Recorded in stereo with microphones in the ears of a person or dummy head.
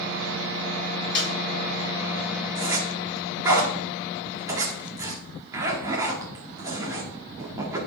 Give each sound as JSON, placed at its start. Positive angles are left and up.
{"t": 1.1, "sound": "a snare drum", "side_deg": 25, "distance_m": 5.5}
{"t": 2.5, "sound": "a zipper", "side_deg": -20, "distance_m": 2.0}